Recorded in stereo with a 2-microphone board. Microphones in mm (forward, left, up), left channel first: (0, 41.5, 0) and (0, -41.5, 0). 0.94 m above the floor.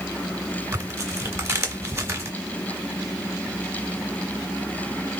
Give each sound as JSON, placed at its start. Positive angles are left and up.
{"t": 0.7, "sound": "tearing paper", "side_deg": -35, "distance_m": 1.8}